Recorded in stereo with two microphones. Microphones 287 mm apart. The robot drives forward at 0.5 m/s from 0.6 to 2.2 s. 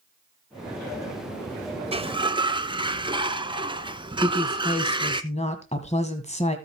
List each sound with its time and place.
1.9 s a sliding door: 20° right (ahead or behind), 0.7 m; by 5.2 s 15° right (ahead or behind), 0.8 m
4.2 s a woman speaking: 25° left (ahead or behind), 1.5 m